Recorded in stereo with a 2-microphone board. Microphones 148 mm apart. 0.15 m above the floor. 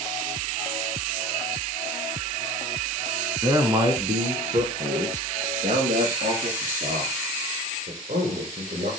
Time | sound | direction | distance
3.4 | a man speaking | 20° right (ahead or behind) | 1.7 m